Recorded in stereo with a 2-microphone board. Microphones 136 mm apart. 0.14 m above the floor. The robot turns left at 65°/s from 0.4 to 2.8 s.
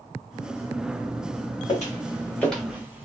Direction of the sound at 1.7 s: 55° left (ahead or behind).